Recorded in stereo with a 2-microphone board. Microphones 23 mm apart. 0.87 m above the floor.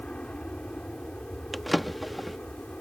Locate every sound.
0.0 s an aircraft: 60° left (ahead or behind)
1.5 s a drawer: 5° right (ahead or behind)